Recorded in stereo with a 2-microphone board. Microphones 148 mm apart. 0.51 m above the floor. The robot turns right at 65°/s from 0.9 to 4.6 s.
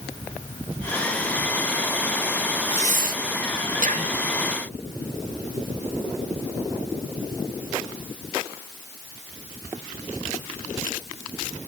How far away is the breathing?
About 0.6 m.